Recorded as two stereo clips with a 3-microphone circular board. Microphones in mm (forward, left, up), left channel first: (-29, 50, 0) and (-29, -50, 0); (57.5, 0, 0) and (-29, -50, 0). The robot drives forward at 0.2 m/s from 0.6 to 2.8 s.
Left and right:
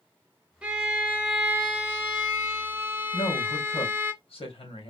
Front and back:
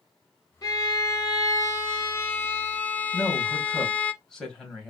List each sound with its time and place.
0.6 s a violin: 15° right, 0.9 m; by 4.1 s 35° right, 0.6 m
3.1 s a woman speaking: 115° left, 2 m